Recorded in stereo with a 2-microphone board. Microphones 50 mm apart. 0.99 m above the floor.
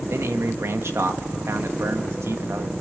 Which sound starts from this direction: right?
A man speaking, at 0.1 s.